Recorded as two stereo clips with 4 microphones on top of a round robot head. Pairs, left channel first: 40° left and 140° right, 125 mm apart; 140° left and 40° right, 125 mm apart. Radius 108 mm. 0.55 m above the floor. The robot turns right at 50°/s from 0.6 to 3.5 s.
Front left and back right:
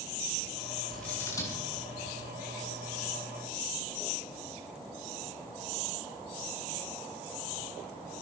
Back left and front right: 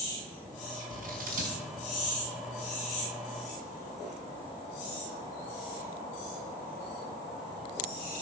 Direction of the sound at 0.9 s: 50° right.